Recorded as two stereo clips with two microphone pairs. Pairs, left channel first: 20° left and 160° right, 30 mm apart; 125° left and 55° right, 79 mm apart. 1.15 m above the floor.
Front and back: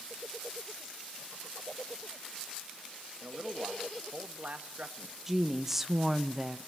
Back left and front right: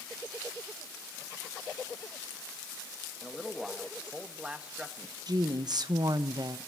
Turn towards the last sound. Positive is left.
turn(degrees=-75)